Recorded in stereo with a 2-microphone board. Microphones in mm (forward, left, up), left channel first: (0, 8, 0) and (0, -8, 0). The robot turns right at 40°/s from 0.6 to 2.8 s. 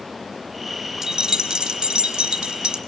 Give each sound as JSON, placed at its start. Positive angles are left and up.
{"t": 1.0, "sound": "keys jangling", "azimuth_deg": -135, "distance_m": 0.8}